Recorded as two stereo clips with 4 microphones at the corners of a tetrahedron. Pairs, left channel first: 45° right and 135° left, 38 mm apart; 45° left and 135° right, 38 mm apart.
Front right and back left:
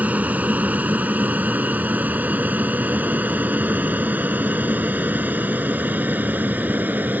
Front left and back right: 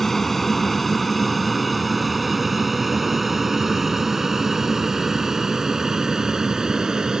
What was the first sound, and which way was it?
An aircraft, 125° left.